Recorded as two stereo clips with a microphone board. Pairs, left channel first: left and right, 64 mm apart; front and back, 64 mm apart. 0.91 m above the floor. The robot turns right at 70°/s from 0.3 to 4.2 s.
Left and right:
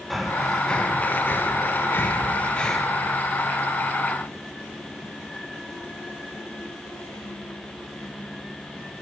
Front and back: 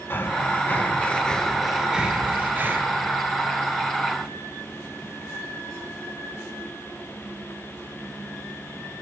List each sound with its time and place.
0.1 s breathing: 5° right, 0.5 m; by 2.8 s 175° left, 0.5 m